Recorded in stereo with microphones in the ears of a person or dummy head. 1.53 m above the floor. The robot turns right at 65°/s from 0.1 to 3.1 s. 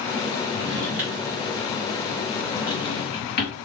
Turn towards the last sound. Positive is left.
turn(degrees=45)  # may be behind; listen again after turning